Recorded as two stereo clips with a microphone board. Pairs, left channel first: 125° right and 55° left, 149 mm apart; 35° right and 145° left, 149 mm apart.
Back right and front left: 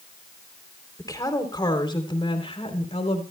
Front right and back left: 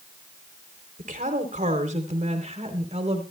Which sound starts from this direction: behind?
A woman speaking, at 1.0 s.